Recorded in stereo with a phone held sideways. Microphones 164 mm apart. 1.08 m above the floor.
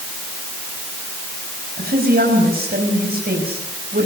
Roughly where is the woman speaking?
Right.